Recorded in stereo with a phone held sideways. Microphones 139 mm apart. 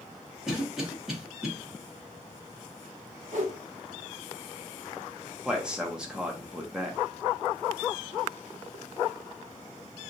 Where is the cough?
5° right (ahead or behind), 1.4 m.